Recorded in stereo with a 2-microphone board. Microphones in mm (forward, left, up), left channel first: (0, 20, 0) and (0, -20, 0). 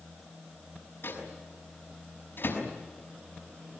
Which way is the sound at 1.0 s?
60° left (ahead or behind).